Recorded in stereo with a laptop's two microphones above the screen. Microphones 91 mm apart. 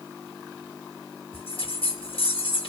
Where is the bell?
75° left (ahead or behind), 1.1 m.